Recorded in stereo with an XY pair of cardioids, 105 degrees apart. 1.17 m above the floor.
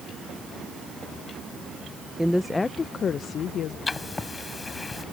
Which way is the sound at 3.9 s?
30° left.